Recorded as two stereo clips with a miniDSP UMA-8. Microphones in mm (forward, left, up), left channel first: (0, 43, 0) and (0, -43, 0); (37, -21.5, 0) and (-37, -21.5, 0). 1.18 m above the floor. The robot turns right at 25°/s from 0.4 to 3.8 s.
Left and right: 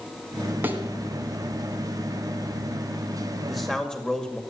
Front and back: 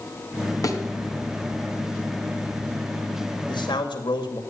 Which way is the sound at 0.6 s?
30° right.